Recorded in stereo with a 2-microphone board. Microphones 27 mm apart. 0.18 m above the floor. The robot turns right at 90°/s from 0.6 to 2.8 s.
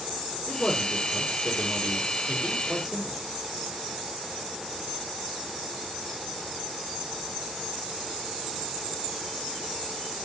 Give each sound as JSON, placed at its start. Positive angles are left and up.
{"t": 0.5, "sound": "a man speaking", "azimuth_deg": 150, "distance_m": 4.5}